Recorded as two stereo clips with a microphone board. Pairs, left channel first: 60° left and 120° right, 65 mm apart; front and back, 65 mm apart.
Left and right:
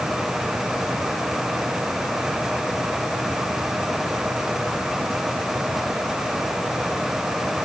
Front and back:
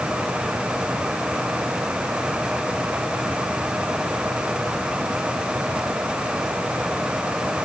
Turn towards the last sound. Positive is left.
No sound to turn to.